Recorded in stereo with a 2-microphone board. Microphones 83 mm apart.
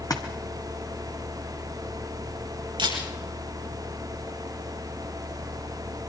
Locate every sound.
0.1 s a splash: 45° left (ahead or behind), 2.0 m
2.8 s a camera shutter: 70° right (ahead or behind), 5.5 m